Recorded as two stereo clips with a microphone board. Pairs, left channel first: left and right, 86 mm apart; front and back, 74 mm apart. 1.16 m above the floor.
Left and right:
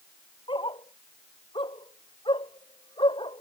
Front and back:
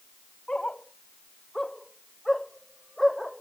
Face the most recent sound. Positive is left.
turn(degrees=90)